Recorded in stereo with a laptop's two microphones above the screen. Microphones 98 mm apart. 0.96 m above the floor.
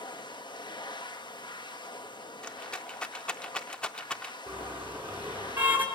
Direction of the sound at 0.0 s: 45° left (ahead or behind).